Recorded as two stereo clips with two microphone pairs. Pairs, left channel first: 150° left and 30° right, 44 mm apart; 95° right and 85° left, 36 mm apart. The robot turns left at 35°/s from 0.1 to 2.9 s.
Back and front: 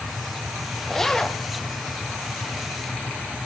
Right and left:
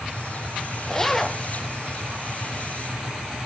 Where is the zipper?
145° right, 0.5 m; by 1.4 s 165° right, 0.5 m.